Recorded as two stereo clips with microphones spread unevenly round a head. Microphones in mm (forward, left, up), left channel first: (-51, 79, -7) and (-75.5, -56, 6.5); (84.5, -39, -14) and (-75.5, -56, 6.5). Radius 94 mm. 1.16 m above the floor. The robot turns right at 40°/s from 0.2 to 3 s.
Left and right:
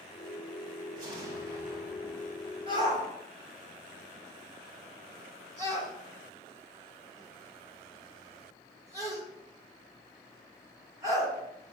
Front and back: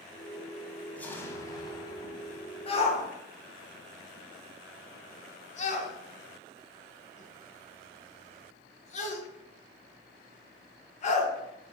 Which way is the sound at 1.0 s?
80° right.